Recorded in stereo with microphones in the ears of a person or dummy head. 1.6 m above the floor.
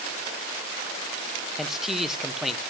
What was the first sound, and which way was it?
A man speaking, centre (ahead or behind).